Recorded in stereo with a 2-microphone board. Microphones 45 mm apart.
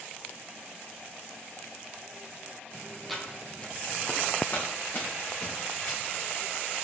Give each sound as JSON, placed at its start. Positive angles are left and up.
{"t": 3.1, "sound": "footsteps", "side_deg": 5, "distance_m": 1.4}